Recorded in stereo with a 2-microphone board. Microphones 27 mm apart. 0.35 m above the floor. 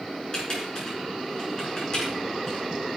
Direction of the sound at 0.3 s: 35° left (ahead or behind).